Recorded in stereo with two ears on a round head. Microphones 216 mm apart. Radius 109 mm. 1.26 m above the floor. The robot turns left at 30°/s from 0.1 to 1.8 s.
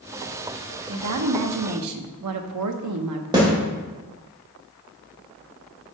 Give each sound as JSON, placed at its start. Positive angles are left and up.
{"t": 0.9, "sound": "a woman speaking", "side_deg": -60, "distance_m": 0.9}
{"t": 3.3, "sound": "a snare drum", "side_deg": -20, "distance_m": 2.5}